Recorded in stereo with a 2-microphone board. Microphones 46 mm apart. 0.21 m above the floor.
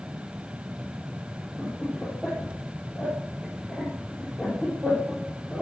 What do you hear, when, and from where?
1.6 s laughter: centre (ahead or behind), 4.5 m